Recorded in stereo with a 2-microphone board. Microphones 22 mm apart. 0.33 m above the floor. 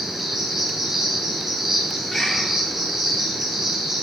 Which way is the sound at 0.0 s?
25° right (ahead or behind).